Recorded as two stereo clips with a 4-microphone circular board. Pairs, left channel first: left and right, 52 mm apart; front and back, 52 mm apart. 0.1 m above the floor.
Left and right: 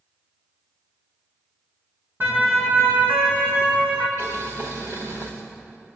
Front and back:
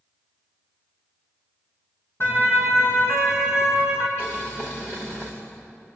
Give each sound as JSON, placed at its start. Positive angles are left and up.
{"t": 2.2, "sound": "a siren", "azimuth_deg": -35, "distance_m": 4.5}
{"t": 4.2, "sound": "boiling", "azimuth_deg": -45, "distance_m": 6.5}